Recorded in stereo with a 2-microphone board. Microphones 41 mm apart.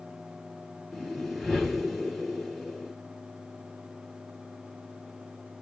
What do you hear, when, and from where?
0.9 s a whoosh: 5° right (ahead or behind), 2.0 m